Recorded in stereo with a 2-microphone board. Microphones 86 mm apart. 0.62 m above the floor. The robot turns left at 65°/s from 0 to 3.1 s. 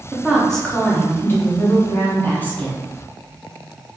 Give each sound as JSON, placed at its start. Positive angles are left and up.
{"t": 0.1, "sound": "a woman speaking", "azimuth_deg": -165, "distance_m": 1.0}